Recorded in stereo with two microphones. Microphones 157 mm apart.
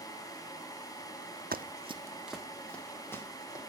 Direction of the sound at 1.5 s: 65° right (ahead or behind).